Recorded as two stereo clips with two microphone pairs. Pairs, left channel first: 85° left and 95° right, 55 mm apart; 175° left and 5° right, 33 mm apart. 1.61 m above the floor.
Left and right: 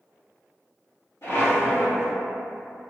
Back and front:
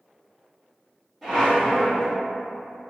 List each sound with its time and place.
1.2 s a squeak: 80° left, 1.5 m